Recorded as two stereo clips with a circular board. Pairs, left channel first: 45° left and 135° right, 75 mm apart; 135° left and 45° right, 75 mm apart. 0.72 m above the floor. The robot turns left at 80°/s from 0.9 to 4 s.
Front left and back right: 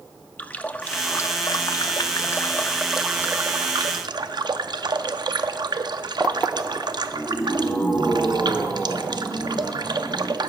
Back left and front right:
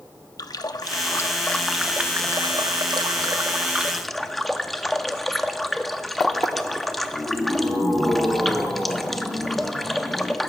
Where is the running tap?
110° left, 0.5 m; by 10.5 s 135° right, 0.5 m.